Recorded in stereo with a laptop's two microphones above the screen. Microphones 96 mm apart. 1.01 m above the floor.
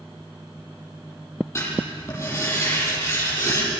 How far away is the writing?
About 10 m.